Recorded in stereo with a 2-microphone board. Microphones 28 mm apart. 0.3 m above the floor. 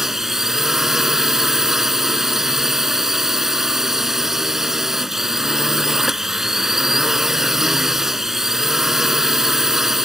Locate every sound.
0.0 s a drone: 15° right (ahead or behind)